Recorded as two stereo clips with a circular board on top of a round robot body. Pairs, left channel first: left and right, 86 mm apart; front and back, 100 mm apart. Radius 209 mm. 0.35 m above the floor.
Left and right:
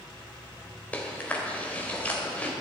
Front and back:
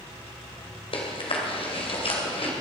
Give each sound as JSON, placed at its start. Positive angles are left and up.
{"t": 0.9, "sound": "chewing", "azimuth_deg": 20, "distance_m": 2.5}